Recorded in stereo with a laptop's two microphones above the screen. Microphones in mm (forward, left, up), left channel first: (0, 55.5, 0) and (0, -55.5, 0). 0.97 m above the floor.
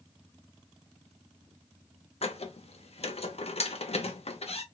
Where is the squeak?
60° left (ahead or behind), 0.6 m.